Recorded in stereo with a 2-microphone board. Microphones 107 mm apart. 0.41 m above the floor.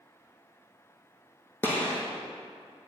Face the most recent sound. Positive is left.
turn(degrees=20)  # may be behind; listen again after turning